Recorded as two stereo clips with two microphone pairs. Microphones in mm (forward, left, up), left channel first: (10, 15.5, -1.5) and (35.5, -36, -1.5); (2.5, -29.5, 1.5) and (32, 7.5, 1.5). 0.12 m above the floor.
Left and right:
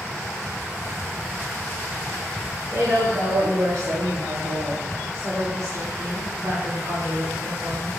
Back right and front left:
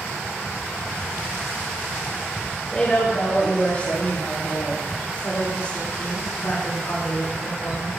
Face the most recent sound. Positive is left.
turn(degrees=-95)